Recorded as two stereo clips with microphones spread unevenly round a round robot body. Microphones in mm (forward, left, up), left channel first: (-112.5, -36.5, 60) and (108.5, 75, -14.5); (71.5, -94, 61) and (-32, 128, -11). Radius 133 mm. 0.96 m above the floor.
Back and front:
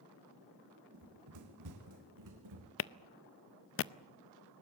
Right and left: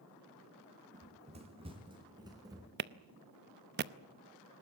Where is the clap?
165° left, 0.7 m.